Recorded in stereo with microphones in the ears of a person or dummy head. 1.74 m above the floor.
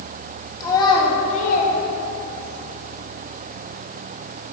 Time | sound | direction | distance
0.6 | a child speaking | 15° left (ahead or behind) | 2 m